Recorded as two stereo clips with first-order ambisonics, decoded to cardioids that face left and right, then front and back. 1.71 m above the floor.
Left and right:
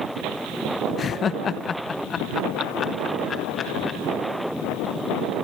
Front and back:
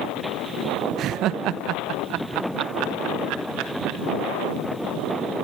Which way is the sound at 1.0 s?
145° left.